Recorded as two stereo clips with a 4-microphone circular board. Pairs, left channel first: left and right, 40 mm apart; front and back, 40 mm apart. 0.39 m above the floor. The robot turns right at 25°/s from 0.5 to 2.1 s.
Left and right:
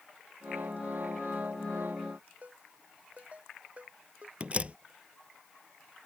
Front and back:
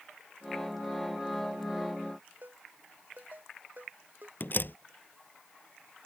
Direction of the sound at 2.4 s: 145° right.